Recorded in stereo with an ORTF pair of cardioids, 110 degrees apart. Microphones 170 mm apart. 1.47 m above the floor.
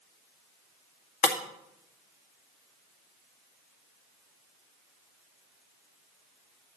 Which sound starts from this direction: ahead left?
Breaking glass, at 1.2 s.